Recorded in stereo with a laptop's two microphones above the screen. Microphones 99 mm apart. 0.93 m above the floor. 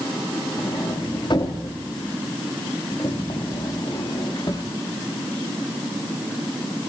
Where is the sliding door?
50° left (ahead or behind), 2 m.